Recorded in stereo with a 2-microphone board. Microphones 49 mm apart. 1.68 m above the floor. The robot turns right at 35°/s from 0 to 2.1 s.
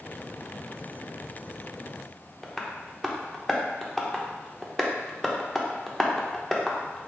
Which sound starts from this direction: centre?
Tapping, at 2.4 s.